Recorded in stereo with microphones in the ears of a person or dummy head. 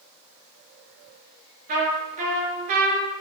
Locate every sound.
1.7 s a trumpet: 50° right (ahead or behind), 6 m